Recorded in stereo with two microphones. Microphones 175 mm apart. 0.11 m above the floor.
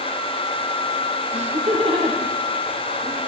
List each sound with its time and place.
1.3 s laughter: 40° right (ahead or behind), 4 m; by 3.2 s 20° right (ahead or behind), 4 m